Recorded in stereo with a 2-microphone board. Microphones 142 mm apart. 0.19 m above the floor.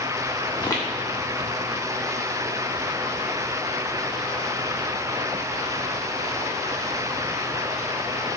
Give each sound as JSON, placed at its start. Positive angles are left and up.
{"t": 0.5, "sound": "footsteps", "side_deg": 20, "distance_m": 1.2}